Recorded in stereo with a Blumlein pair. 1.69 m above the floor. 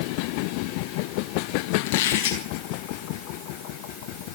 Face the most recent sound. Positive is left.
turn(degrees=45)